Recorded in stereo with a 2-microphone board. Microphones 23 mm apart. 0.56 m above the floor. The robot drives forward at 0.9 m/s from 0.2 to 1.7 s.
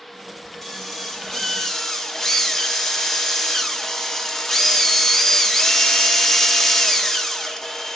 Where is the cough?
I don't hear a cough.